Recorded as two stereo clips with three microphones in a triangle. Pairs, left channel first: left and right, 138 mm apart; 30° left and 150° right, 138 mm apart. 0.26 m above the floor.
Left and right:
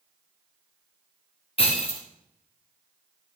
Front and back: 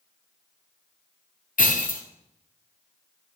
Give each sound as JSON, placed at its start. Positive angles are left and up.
{"t": 1.6, "sound": "breaking glass", "azimuth_deg": 45, "distance_m": 2.5}